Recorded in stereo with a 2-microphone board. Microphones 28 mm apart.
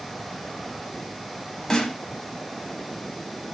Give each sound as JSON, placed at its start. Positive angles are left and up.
{"t": 1.7, "sound": "a snare drum", "side_deg": 20, "distance_m": 0.8}